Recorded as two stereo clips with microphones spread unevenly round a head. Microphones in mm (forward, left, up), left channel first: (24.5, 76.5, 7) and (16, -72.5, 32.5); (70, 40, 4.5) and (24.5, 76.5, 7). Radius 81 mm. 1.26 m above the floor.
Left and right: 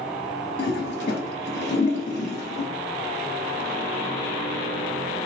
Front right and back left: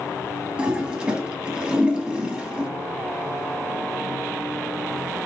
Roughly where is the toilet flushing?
Ahead left.